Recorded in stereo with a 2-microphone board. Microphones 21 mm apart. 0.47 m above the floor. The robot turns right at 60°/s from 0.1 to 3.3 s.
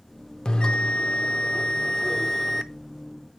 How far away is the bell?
About 0.6 m.